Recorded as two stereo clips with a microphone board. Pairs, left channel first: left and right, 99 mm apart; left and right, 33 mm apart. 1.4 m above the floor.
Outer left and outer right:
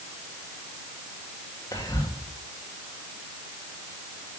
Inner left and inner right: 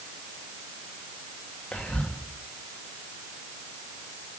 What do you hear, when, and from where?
1.7 s whispering: 40° left (ahead or behind), 1.6 m